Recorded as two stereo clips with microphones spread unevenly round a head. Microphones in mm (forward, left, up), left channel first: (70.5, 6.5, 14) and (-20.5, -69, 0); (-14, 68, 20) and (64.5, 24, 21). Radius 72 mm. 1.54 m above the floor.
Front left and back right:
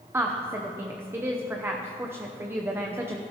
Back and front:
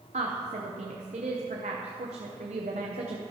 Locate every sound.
0.1 s a woman speaking: 70° right, 0.7 m